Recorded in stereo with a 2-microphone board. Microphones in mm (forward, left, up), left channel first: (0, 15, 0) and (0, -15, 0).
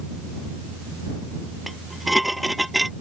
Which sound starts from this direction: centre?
Dishes clattering, at 1.7 s.